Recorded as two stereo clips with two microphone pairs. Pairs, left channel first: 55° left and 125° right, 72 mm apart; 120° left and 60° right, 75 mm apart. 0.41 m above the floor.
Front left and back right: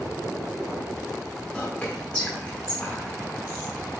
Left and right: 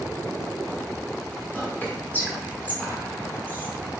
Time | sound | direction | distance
1.5 | whispering | 100° left | 1.1 m